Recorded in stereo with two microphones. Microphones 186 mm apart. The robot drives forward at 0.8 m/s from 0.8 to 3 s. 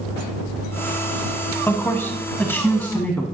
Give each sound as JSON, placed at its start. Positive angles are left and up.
{"t": 1.7, "sound": "a man speaking", "side_deg": 10, "distance_m": 1.0}